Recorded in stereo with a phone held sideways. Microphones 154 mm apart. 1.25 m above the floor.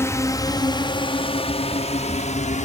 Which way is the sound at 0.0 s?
15° left (ahead or behind).